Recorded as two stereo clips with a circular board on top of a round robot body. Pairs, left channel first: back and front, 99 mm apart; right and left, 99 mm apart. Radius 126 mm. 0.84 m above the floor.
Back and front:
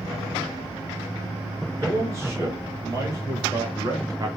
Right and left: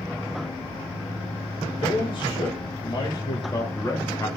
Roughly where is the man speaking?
Ahead right.